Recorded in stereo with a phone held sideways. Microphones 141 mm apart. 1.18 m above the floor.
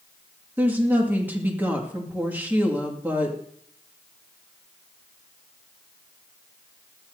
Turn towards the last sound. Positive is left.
turn(degrees=-15)  # may be behind; listen again after turning